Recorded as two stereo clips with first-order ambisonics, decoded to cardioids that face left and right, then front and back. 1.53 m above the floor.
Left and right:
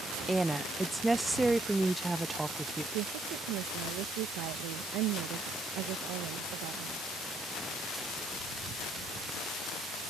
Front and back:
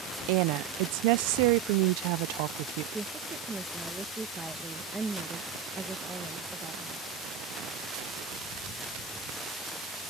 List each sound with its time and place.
0.3 s a woman speaking: 170° right
2.9 s a woman speaking: 100° right